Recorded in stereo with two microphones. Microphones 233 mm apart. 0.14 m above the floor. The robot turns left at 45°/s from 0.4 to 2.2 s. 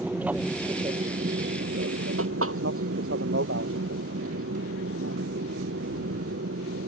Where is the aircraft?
5° right (ahead or behind); by 6.9 s 70° right (ahead or behind).